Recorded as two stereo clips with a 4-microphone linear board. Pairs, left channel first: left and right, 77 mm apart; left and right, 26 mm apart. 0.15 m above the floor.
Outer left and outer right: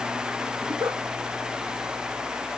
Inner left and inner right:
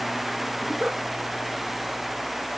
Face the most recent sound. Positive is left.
turn(degrees=-40)  # may be behind; listen again after turning